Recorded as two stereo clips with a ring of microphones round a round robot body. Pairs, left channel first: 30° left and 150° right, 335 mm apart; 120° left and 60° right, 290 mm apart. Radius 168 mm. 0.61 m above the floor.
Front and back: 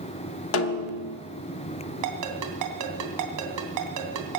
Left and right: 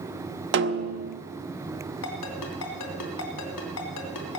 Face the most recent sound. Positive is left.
turn(degrees=170)